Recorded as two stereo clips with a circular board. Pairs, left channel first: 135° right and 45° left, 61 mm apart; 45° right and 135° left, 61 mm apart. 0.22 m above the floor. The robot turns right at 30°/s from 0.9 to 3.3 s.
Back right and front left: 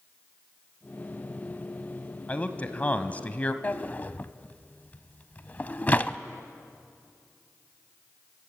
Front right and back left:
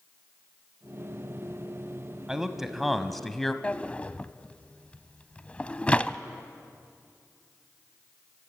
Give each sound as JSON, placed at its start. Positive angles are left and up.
{"t": 2.3, "sound": "a man speaking", "azimuth_deg": -155, "distance_m": 1.2}
{"t": 3.6, "sound": "a drawer", "azimuth_deg": -100, "distance_m": 0.6}